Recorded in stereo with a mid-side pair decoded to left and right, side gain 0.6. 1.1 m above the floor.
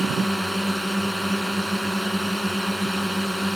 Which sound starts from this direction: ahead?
A drone, at 0.0 s.